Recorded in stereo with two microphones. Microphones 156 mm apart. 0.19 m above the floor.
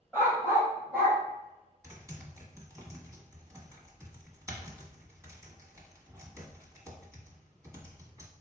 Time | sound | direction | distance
0.1 | a dog barking | 15° right (ahead or behind) | 1.9 m
1.8 | typing on a keyboard | 20° right (ahead or behind) | 1.2 m